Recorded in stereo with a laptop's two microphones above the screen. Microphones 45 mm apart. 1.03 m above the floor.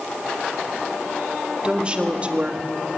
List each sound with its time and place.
1.6 s a woman speaking: 25° right (ahead or behind), 2 m; by 2.7 s 35° right (ahead or behind), 1.5 m